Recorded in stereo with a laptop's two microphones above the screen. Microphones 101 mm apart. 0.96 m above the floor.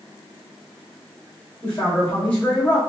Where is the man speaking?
10° left (ahead or behind), 1.3 m.